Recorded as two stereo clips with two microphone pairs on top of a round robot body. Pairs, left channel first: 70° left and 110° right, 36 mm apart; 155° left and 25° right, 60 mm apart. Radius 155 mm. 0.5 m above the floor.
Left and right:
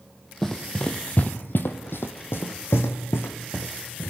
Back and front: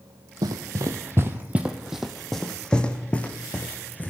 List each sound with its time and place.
0.4 s running footsteps: 5° right, 1.3 m; by 4.1 s 95° left, 3 m